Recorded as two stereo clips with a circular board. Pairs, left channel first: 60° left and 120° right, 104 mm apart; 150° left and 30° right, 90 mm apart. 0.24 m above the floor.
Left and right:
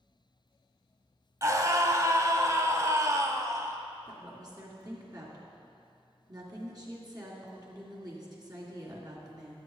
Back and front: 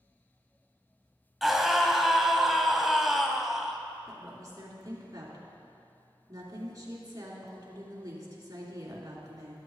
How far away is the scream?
About 1.0 m.